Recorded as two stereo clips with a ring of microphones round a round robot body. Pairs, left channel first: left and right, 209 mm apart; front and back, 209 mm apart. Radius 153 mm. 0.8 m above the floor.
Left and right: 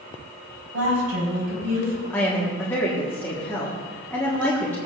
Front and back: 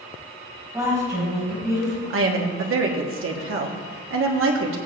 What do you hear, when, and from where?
0.7 s a woman speaking: 100° right, 5 m
2.1 s a woman speaking: 175° left, 1.3 m